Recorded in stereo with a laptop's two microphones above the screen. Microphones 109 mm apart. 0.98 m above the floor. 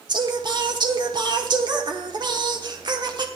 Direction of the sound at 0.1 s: 45° right (ahead or behind).